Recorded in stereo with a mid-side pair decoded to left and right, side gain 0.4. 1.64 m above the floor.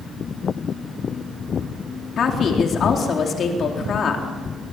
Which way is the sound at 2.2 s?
65° left.